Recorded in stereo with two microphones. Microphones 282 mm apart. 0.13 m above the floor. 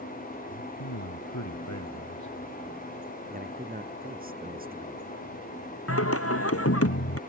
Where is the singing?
55° left (ahead or behind).